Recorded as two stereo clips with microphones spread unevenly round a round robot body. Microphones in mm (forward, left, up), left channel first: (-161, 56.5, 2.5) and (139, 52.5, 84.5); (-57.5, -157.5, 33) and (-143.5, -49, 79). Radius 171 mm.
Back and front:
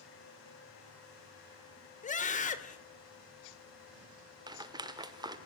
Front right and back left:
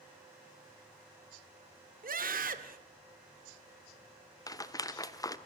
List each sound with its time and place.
2.0 s a scream: 135° left, 2 m
4.5 s a rattle: 90° right, 1.3 m